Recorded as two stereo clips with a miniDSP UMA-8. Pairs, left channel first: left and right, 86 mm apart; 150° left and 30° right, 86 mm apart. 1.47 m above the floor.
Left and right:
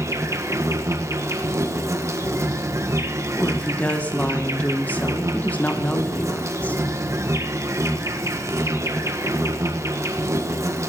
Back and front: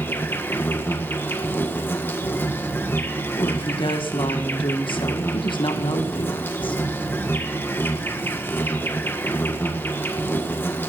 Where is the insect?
145° right, 1.5 m.